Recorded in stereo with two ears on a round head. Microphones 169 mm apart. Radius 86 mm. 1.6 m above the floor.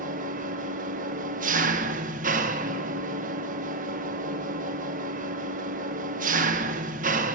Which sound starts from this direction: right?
An engine running, at 0.0 s.